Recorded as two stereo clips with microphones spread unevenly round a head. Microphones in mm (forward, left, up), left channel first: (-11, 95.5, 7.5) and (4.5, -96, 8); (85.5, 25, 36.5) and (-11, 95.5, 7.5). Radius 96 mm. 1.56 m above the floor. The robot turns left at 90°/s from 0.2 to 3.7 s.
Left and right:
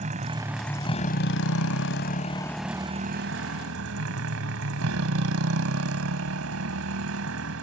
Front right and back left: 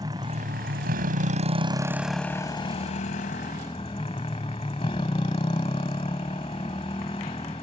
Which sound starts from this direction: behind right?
A motorcycle, at 0.0 s.